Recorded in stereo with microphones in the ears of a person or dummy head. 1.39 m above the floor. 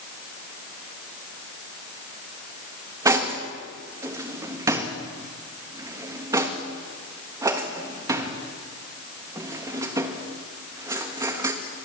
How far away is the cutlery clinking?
About 1.1 m.